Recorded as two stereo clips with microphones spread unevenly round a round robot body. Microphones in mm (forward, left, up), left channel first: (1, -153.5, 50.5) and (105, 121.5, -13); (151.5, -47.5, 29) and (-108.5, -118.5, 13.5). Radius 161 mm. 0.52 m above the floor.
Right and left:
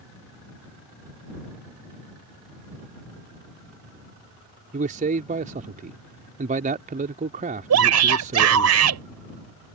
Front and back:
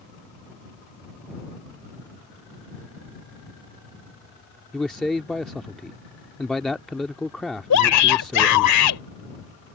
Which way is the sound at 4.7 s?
105° left.